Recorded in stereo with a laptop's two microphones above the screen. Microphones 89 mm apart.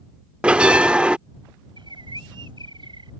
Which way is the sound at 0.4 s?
15° right (ahead or behind).